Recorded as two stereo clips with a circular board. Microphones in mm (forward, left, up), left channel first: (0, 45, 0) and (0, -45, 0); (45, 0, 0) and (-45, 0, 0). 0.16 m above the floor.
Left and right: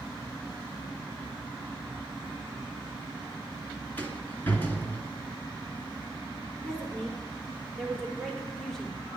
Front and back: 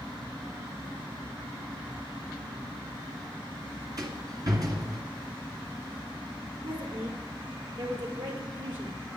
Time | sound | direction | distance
4.0 | a rattle | 150° left | 2.5 m
6.6 | a woman speaking | 175° left | 4.5 m